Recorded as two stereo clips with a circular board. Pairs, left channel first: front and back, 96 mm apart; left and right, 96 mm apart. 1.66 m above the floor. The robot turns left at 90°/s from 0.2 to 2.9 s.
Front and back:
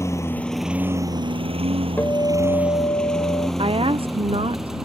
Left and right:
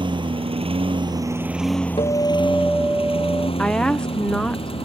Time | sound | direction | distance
0.0 | a lawn mower | 60° right | ?
2.0 | a guitar | 65° left | ?
3.6 | a woman speaking | 170° left | ?